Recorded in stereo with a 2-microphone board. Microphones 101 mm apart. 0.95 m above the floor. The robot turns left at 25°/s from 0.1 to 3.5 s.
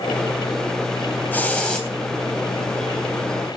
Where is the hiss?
15° left (ahead or behind), 3.5 m; by 1.9 s 5° left (ahead or behind), 3.5 m.